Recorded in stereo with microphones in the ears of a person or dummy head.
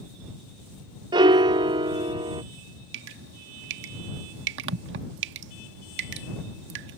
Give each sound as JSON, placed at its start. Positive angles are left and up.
{"t": 1.1, "sound": "a piano", "side_deg": -20}
{"t": 2.9, "sound": "dripping", "side_deg": -70}